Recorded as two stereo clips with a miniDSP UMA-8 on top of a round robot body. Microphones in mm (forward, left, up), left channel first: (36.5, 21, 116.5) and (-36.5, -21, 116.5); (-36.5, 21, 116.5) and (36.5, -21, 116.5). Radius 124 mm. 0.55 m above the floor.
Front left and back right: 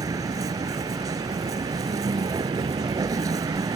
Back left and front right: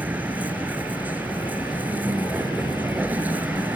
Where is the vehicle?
100° right.